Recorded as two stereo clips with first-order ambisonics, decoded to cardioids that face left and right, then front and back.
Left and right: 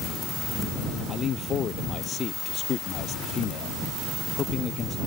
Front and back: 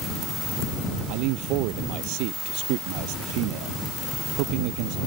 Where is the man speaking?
155° left.